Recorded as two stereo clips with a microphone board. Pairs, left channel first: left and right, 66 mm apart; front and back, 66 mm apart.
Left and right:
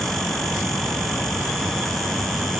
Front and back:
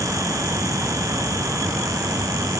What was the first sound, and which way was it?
Only background noise.